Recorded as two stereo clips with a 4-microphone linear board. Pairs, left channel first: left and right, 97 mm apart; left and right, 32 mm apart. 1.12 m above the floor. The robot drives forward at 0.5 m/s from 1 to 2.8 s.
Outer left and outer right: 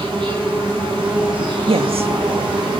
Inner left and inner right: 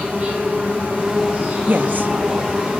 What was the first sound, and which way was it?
An insect, 60° right (ahead or behind).